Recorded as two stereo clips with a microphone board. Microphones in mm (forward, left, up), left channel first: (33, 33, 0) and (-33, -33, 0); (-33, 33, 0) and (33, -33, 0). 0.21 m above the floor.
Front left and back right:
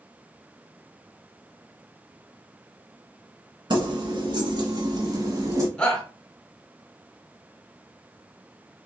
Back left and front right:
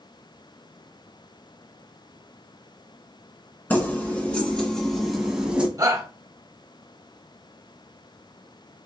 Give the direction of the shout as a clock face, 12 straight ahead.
1 o'clock.